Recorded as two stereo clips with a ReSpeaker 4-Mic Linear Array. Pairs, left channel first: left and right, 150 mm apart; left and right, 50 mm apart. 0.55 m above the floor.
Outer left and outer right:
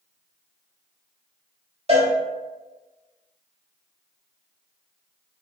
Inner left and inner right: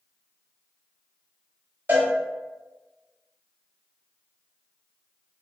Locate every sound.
1.9 s a cowbell: 45° right (ahead or behind), 1.4 m